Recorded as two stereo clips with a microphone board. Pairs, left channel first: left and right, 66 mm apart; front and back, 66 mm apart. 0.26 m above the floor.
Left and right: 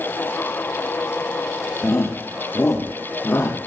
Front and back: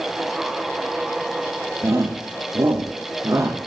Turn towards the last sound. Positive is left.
turn(degrees=150)